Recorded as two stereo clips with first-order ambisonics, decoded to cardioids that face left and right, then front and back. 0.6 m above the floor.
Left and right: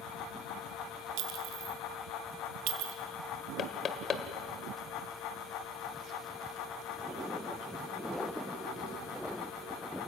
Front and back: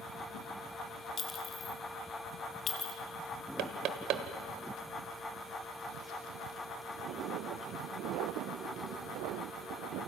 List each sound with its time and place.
1.2 s a clink: 65° right, 2.5 m
3.6 s knocking: 150° left, 1.6 m